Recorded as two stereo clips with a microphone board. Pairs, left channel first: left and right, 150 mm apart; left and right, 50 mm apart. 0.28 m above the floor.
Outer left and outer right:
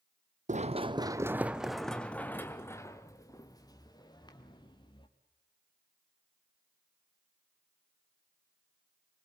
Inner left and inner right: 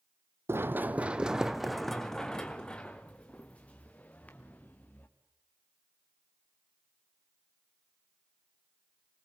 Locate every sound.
0.5 s running footsteps: 50° right (ahead or behind), 0.7 m; by 5.1 s 30° left (ahead or behind), 3 m